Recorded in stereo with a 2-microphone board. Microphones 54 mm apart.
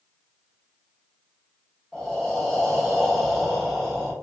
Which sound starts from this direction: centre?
Breathing, at 1.9 s.